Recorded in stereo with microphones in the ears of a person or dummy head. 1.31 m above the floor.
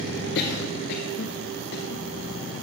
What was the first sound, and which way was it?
A cough, 55° left (ahead or behind).